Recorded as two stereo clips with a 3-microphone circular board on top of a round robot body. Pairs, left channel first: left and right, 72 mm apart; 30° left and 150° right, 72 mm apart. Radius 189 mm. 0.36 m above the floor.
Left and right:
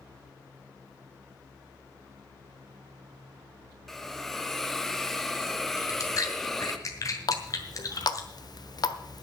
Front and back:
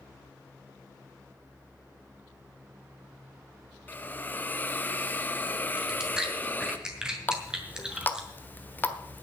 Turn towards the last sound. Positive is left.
turn(degrees=90)